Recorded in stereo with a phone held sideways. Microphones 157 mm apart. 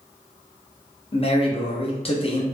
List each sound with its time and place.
1.1 s a man speaking: 35° left (ahead or behind), 0.6 m